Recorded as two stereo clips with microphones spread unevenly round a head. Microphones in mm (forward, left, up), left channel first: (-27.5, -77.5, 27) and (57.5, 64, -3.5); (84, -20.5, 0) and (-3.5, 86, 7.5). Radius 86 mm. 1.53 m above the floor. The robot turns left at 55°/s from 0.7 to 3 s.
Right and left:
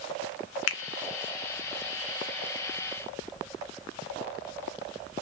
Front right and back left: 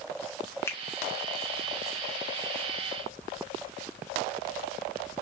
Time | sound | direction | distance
0.7 | a finger snap | 130° right | 0.5 m